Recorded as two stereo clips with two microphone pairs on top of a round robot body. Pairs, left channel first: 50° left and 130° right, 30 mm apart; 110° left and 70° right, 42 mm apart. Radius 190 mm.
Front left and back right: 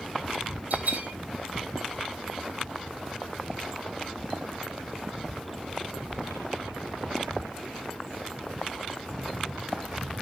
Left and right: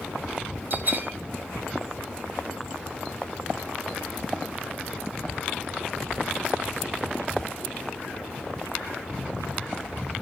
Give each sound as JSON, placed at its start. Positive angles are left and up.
{"t": 0.7, "sound": "a bell", "azimuth_deg": -105, "distance_m": 1.7}